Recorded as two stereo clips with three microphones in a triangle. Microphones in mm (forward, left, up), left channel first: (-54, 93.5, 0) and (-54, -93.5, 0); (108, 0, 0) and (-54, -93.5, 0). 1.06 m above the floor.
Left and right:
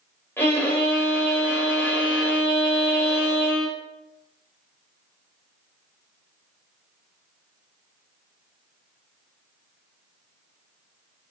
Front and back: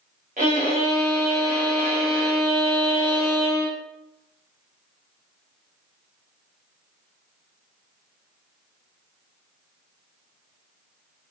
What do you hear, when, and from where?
0.4 s a violin: 170° left, 2.5 m